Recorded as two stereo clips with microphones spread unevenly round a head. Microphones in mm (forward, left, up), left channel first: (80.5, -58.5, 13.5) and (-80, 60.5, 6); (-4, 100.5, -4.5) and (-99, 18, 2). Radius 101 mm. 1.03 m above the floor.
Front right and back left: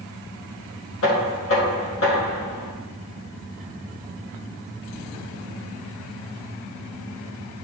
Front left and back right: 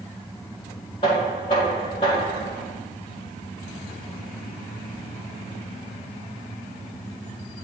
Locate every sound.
1.0 s knocking: 20° right, 1.8 m